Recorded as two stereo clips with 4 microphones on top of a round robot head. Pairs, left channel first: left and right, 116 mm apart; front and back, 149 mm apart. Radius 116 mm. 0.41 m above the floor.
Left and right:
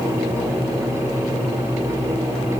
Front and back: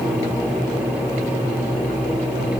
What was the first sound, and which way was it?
Only background noise.